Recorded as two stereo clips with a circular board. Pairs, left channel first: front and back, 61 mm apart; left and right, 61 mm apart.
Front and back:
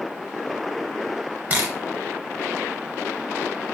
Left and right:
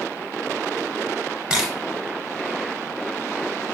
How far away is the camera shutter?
About 1.0 m.